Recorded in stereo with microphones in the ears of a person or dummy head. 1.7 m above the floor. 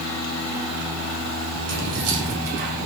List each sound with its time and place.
1.7 s keys jangling: 75° right (ahead or behind), 3 m; by 2.9 s 55° right (ahead or behind), 2 m